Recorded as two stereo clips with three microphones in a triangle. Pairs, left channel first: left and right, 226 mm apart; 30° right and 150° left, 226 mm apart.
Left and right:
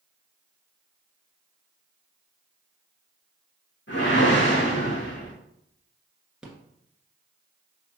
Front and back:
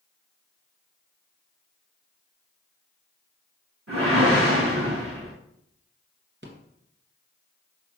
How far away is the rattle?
About 1.5 m.